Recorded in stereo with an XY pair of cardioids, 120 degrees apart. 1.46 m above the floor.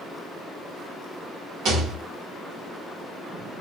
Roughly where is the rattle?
Right.